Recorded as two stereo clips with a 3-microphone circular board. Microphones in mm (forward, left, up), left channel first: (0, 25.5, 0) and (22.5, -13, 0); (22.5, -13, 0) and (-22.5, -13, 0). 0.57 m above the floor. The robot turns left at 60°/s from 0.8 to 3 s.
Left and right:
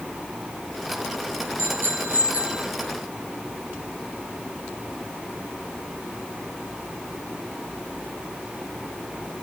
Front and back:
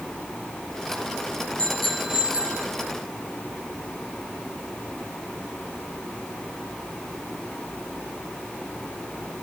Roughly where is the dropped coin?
I don't hear a dropped coin.